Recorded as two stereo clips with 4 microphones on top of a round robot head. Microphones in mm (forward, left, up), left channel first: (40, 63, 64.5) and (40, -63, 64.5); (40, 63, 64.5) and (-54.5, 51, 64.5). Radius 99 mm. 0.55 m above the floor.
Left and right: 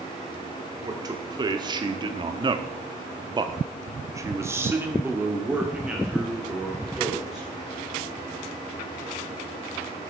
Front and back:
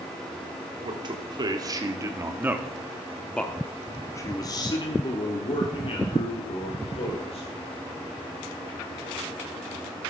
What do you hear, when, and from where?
0.8 s a man speaking: 145° right, 1.5 m; by 7.5 s 5° right, 2.5 m